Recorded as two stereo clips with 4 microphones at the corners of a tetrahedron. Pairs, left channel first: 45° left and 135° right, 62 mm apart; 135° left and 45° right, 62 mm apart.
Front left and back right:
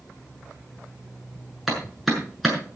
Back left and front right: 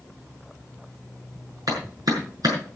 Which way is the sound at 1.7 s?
45° right.